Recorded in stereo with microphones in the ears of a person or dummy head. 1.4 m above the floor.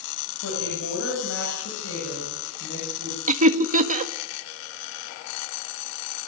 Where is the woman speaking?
80° left, 9 m; by 3.2 s 70° left (ahead or behind), 9.5 m.